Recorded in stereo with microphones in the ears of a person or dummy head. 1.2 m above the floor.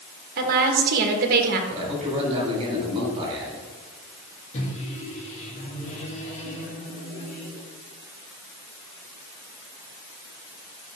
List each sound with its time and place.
0.4 s a woman speaking: 50° right (ahead or behind), 1.6 m
1.7 s a man speaking: 25° right (ahead or behind), 4 m
4.5 s a microwave: 45° left (ahead or behind), 2 m